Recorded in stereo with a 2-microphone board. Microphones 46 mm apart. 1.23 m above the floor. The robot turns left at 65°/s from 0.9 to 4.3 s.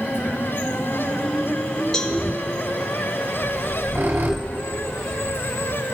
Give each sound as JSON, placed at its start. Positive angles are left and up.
{"t": 1.9, "sound": "a cowbell", "side_deg": 15, "distance_m": 1.5}
{"t": 3.4, "sound": "a squeak", "side_deg": -45, "distance_m": 2.5}